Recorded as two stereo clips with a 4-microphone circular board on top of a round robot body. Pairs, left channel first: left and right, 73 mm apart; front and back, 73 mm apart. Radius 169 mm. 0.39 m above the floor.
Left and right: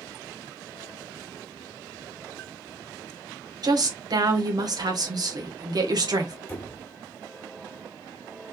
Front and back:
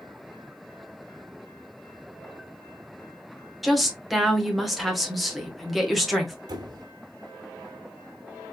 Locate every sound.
3.6 s a woman speaking: 90° right, 2.0 m
6.5 s a squeak: 155° left, 1.3 m